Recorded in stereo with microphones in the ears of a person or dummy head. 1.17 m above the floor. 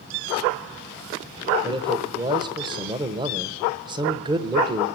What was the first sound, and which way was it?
A man speaking, 20° right (ahead or behind).